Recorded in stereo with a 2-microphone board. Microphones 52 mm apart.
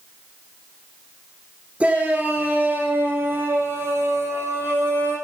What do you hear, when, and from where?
1.8 s a shout: 25° right (ahead or behind), 2.5 m; by 5.2 s 55° right (ahead or behind), 5 m